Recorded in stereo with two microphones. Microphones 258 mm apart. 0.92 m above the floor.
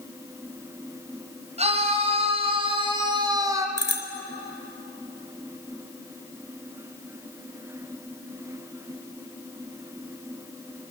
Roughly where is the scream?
Right.